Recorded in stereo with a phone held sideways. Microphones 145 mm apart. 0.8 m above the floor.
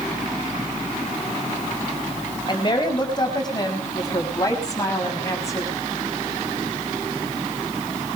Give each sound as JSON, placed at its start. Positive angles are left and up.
{"t": 2.5, "sound": "a woman speaking", "side_deg": 35, "distance_m": 4.5}